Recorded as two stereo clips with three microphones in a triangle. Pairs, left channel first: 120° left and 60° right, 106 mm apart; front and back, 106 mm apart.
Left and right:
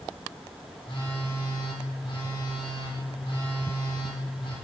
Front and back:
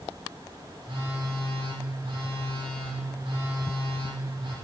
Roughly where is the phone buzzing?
Behind left.